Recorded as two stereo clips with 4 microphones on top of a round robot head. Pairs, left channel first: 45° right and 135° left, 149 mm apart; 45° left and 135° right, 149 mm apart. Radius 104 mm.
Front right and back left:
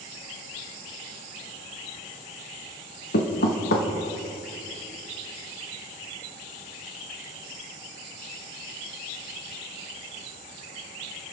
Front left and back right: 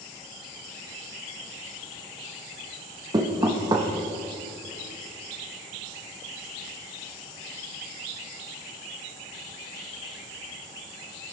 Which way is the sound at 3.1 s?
70° right.